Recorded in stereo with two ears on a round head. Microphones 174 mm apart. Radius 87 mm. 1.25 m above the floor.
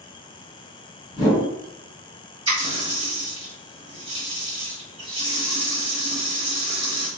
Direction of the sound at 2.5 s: 25° right (ahead or behind).